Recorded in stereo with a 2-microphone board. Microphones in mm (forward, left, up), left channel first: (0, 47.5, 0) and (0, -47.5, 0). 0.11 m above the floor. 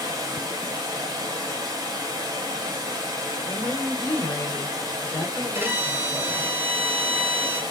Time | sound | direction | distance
0.0 | running water | 45° right (ahead or behind) | 1.3 m
3.5 | a woman speaking | 35° left (ahead or behind) | 1.4 m
5.5 | a violin | 25° right (ahead or behind) | 0.8 m